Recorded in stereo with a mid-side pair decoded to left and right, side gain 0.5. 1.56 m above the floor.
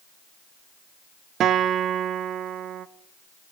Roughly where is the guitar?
Ahead right.